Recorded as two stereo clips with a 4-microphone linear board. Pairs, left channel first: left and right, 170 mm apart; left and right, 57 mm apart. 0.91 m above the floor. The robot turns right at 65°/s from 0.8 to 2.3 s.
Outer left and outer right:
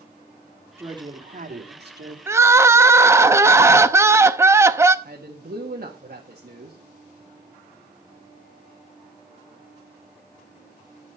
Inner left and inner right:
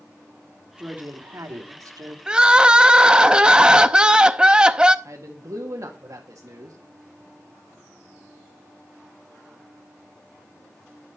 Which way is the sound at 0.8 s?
165° right.